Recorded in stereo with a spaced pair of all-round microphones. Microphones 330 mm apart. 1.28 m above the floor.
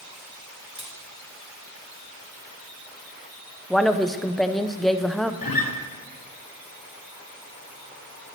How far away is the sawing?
No sawing in this recording.